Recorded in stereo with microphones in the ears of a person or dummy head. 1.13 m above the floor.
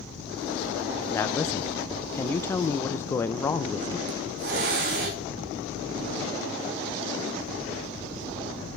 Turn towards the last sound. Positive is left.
turn(degrees=-60)  # may be behind; listen again after turning